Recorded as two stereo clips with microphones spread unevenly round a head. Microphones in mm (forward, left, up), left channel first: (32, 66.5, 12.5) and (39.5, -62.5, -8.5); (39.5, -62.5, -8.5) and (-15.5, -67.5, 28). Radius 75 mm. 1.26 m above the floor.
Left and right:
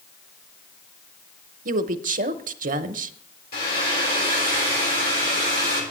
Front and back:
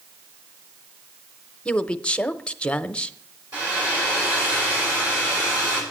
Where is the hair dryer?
120° left, 6.5 m.